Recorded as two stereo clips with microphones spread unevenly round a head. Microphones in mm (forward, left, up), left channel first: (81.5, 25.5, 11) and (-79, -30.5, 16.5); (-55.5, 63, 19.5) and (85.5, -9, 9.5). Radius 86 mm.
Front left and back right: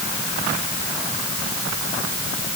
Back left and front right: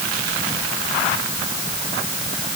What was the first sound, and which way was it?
Only background noise.